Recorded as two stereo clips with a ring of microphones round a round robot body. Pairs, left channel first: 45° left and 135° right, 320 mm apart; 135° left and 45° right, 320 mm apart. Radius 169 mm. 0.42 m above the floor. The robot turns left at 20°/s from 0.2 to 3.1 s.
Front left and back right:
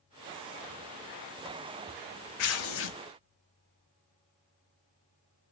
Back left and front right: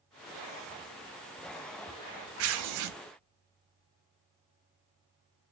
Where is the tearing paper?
5° left, 0.5 m; by 3.0 s 10° right, 0.5 m.